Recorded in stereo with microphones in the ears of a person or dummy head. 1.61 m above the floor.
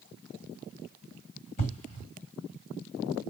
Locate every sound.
1.6 s an explosion: 40° left (ahead or behind), 1.8 m